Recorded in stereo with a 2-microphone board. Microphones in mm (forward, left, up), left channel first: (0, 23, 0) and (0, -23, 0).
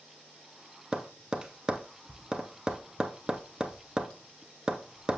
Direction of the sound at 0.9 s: 15° right (ahead or behind).